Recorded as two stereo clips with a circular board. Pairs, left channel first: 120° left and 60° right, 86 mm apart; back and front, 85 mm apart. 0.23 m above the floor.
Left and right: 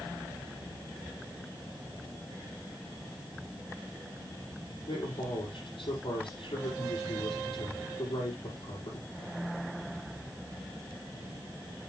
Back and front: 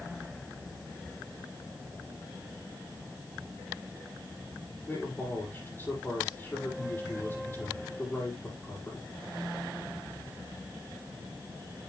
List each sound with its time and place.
4.9 s a man speaking: 115° left, 6 m